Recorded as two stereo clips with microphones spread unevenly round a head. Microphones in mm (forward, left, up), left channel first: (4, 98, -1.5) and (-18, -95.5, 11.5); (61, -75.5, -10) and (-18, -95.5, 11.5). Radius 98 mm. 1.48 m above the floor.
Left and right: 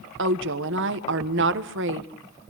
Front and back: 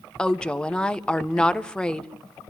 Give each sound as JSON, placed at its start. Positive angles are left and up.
{"t": 0.2, "sound": "a woman speaking", "azimuth_deg": -65, "distance_m": 1.4}